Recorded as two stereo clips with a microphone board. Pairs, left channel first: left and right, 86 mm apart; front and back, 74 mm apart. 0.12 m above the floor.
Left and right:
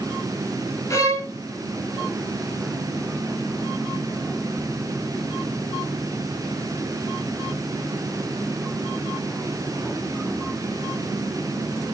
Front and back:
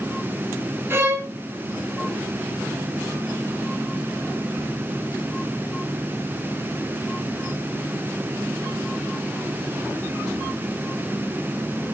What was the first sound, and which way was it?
A violin, 135° left.